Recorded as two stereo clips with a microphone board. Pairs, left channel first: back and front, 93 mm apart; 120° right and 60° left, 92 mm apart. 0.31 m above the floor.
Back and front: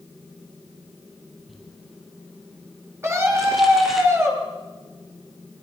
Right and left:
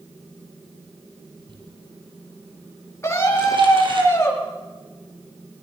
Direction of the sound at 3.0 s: 60° right.